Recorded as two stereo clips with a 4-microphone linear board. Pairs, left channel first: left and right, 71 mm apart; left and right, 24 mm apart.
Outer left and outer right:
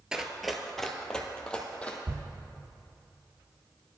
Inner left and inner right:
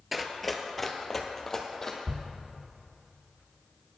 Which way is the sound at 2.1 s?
40° right (ahead or behind).